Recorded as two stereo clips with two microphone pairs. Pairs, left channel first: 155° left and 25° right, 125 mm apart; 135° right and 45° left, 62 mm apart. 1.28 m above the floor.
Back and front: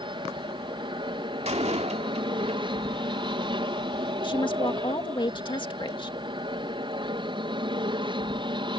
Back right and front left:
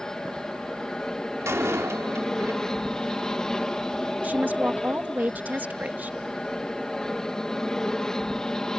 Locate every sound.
0.0 s an aircraft: 60° right
1.4 s a door slam: 5° left
4.2 s a woman speaking: 105° left